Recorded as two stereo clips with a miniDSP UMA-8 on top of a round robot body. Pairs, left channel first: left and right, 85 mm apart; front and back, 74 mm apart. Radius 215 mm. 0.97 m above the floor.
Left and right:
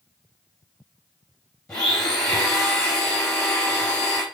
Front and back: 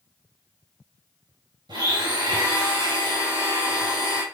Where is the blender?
170° left, 3.5 m.